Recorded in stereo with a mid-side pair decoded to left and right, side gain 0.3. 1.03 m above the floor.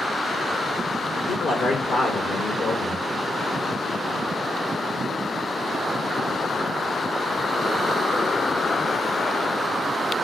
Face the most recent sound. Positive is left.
turn(degrees=70)